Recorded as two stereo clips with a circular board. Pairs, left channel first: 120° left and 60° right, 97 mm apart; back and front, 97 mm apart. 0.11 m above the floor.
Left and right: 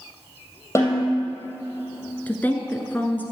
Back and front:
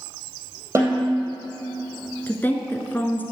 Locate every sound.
0.8 s a snare drum: 60° left, 3 m
2.3 s a woman speaking: 155° left, 1.1 m